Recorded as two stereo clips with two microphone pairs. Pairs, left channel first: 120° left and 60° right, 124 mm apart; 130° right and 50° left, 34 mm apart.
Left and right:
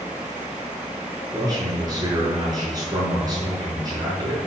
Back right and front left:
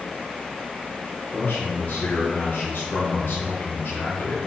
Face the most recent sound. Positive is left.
turn(degrees=-120)